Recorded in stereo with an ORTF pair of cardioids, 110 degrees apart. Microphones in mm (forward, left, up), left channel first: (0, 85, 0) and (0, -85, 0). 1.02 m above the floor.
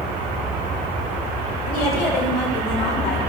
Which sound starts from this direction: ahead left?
A woman speaking, at 1.7 s.